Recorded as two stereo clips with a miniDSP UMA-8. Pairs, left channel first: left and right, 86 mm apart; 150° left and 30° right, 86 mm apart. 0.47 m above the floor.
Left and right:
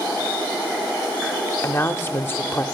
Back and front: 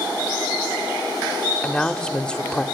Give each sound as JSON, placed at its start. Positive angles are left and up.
{"t": 1.6, "sound": "a woman speaking", "azimuth_deg": 85, "distance_m": 1.1}